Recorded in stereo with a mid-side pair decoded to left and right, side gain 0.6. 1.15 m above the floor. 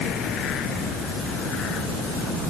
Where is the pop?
No pop in this recording.